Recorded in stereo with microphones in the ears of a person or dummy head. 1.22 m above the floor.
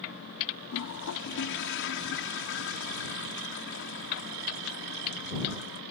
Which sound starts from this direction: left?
A toilet flushing, at 0.7 s.